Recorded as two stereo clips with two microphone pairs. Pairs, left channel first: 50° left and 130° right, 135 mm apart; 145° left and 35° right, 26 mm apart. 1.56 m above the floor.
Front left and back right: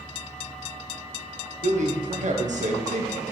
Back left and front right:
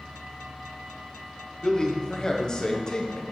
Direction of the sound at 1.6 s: 155° right.